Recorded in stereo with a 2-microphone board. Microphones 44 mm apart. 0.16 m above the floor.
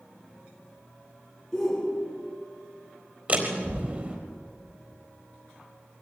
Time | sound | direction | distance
1.5 | a shout | 10° left (ahead or behind) | 1.9 m
3.3 | a door slam | 35° right (ahead or behind) | 4 m